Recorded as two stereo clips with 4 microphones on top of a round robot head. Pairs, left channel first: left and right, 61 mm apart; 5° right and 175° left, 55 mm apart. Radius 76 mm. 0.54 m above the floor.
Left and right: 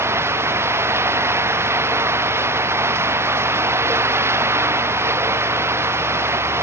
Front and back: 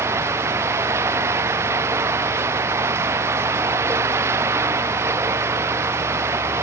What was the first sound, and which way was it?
Running water, 135° right.